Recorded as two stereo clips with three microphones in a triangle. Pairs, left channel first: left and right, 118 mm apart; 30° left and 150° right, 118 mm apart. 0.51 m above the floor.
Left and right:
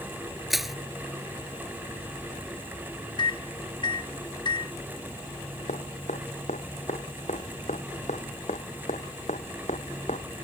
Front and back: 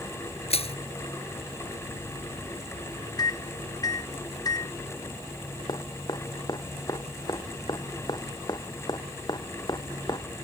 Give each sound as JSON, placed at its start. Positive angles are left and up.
{"t": 0.5, "sound": "crushing", "azimuth_deg": 0}
{"t": 3.2, "sound": "a microwave", "azimuth_deg": 70}
{"t": 5.7, "sound": "dripping", "azimuth_deg": 85}